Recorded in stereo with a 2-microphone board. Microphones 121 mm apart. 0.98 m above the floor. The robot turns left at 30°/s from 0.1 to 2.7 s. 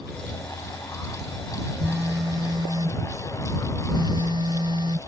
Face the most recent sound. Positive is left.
turn(degrees=-45)  # may be behind; listen again after turning